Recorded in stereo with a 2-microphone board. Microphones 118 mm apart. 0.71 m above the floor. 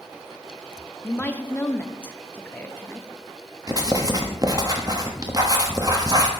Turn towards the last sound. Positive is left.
turn(degrees=-30)  # may be behind; listen again after turning